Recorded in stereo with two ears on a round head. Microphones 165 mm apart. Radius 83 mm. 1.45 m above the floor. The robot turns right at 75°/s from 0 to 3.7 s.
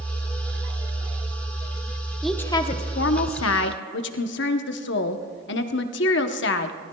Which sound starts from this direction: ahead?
A woman speaking, at 2.2 s.